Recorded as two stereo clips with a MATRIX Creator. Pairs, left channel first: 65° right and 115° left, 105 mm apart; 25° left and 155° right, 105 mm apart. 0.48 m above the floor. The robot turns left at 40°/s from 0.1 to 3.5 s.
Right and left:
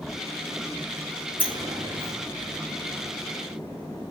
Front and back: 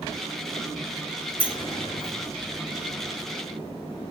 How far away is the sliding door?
About 1.5 m.